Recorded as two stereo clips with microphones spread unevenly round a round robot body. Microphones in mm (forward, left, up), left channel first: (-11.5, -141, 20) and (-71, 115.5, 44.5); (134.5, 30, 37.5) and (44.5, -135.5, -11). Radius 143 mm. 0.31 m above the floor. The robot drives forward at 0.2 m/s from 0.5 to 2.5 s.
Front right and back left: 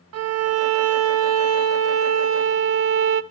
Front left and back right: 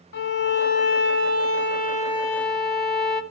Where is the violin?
105° left, 1.0 m; by 3.2 s 130° left, 1.1 m.